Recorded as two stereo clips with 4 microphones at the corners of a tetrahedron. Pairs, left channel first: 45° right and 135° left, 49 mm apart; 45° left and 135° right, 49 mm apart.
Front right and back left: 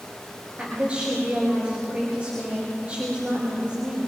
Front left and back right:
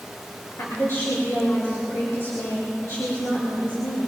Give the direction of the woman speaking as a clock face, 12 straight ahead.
10 o'clock.